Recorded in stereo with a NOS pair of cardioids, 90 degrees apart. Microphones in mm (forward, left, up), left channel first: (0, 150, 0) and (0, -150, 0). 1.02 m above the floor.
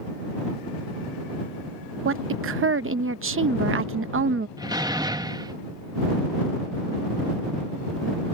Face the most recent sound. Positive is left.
turn(degrees=-15)